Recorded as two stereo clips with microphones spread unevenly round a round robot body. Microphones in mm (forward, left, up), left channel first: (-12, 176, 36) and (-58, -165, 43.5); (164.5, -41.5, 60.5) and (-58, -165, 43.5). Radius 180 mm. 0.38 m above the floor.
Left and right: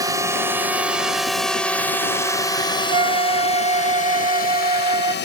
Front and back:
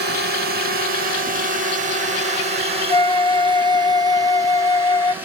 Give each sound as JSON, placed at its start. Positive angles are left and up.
{"t": 0.0, "sound": "a drone", "azimuth_deg": -175}
{"t": 2.9, "sound": "a flute", "azimuth_deg": -40}